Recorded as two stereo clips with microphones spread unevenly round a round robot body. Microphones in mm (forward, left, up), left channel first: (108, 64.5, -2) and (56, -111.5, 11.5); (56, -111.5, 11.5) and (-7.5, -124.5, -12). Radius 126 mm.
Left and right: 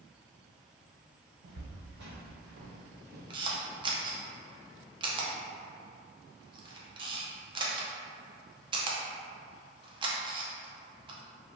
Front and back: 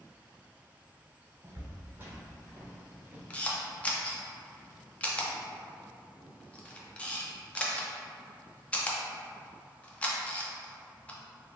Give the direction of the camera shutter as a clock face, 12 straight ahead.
3 o'clock.